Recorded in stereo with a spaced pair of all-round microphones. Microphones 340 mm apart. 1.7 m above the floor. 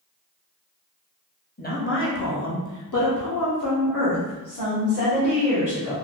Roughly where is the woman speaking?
Left.